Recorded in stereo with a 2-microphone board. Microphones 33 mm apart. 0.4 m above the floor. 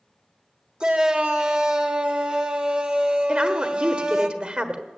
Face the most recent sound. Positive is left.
turn(degrees=-30)  # may be behind; listen again after turning